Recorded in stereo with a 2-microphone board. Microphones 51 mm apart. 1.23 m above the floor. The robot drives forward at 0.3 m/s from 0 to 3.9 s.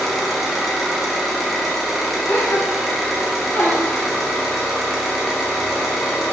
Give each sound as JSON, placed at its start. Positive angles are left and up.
{"t": 0.0, "sound": "an engine running", "side_deg": 0, "distance_m": 4.5}
{"t": 2.3, "sound": "a gasp", "side_deg": 40, "distance_m": 4.0}